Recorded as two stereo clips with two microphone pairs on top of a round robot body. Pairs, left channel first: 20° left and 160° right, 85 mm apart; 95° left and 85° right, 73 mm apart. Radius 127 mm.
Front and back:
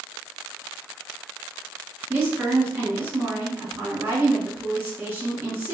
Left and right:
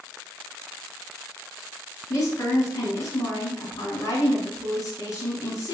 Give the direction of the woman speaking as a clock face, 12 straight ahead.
8 o'clock.